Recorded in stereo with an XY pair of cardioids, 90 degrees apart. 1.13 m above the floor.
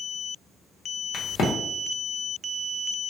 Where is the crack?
65° left, 0.8 m.